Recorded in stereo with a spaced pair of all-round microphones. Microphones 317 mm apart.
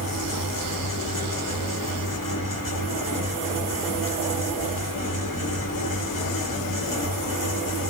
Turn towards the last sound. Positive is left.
turn(degrees=70)  # may be behind; listen again after turning